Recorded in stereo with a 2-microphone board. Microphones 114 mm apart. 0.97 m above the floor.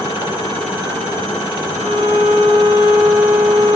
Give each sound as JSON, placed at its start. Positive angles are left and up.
{"t": 1.7, "sound": "a violin", "side_deg": -85, "distance_m": 7.5}